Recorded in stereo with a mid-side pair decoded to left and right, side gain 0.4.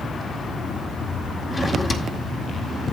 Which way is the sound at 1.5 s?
40° left.